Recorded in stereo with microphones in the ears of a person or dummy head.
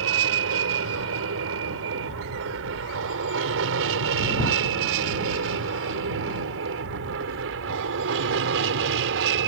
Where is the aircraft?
75° right (ahead or behind); by 9.5 s 65° right (ahead or behind).